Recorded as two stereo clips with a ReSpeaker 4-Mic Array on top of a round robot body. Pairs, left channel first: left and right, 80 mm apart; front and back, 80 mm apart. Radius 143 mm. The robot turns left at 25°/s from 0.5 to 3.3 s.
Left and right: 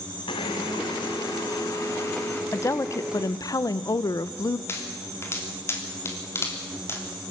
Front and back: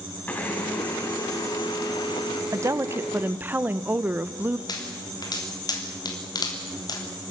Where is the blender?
70° left, 1.3 m; by 2.4 s 25° left, 1.3 m.